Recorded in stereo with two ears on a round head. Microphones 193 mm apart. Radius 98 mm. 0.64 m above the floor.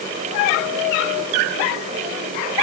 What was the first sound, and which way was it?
Only background noise.